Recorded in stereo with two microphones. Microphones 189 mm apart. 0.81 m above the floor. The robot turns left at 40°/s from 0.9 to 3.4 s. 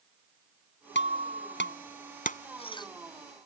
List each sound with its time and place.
0.9 s breaking glass: 80° left; by 2.9 s 20° left (ahead or behind)